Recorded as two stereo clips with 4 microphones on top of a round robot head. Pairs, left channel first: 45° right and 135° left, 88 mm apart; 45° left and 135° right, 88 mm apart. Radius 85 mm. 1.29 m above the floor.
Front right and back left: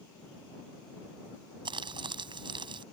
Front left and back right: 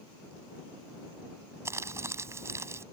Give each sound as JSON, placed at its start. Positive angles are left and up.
{"t": 1.6, "sound": "crumpling", "azimuth_deg": 165}